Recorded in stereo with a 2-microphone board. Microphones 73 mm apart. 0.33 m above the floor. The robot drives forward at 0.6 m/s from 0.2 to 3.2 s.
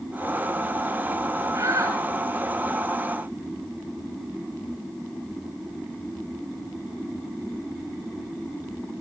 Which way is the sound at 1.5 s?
45° right (ahead or behind).